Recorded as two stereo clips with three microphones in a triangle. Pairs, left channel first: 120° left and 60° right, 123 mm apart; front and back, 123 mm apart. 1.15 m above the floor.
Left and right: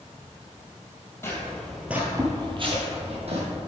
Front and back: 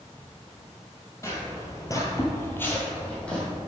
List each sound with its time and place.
1.2 s footsteps: 55° left, 1.6 m; by 3.5 s 80° right, 2.5 m